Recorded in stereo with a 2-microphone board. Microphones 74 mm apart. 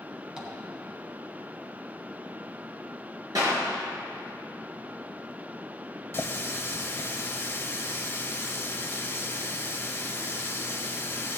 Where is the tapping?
15° right (ahead or behind), 3 m.